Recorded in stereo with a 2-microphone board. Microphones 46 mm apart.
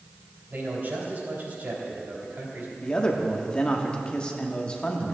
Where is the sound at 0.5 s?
45° right (ahead or behind), 3 m.